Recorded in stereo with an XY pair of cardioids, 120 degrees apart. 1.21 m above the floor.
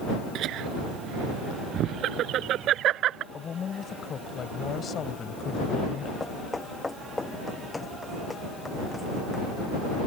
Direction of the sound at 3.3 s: 40° left.